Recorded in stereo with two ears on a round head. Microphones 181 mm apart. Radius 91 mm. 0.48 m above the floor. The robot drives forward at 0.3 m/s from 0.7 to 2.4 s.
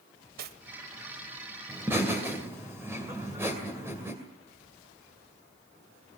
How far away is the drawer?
I don't hear a drawer.